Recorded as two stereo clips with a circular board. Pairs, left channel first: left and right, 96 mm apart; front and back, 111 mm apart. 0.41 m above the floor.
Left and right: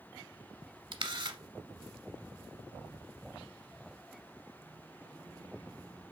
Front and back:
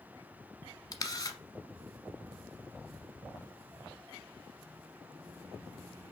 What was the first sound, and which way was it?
A camera shutter, 55° right.